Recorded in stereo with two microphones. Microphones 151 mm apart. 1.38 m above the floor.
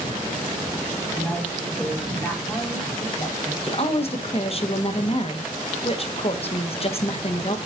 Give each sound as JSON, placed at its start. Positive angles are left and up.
{"t": 1.1, "sound": "a woman speaking", "side_deg": 5, "distance_m": 5.0}
{"t": 3.6, "sound": "a woman speaking", "side_deg": 40, "distance_m": 1.1}